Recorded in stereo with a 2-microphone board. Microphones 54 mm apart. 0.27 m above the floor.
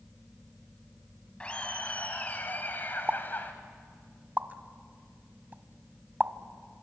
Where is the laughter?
20° left (ahead or behind), 2.0 m; by 3.5 s 40° left (ahead or behind), 1.7 m.